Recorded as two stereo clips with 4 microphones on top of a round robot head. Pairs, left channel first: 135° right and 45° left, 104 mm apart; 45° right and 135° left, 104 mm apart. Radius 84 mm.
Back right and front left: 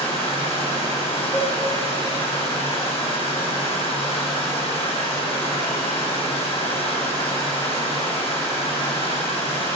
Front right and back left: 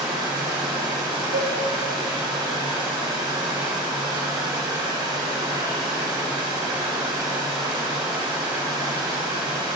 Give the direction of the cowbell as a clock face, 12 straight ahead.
7 o'clock.